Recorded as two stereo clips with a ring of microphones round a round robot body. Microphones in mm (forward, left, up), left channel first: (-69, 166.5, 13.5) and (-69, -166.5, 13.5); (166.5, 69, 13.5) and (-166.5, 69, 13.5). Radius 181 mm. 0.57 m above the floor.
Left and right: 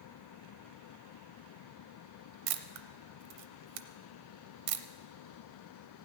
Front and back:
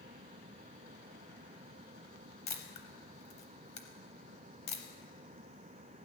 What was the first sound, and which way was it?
A camera shutter, 75° right.